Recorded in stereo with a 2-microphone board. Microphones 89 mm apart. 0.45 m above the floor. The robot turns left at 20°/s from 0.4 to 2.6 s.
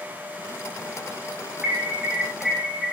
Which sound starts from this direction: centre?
An alarm, at 1.6 s.